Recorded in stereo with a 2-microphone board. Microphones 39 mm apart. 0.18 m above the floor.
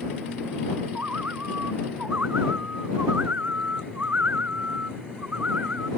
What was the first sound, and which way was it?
A bird, 50° right (ahead or behind).